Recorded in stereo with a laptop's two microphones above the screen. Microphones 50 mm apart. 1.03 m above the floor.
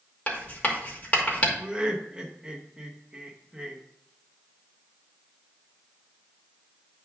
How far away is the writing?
About 2 m.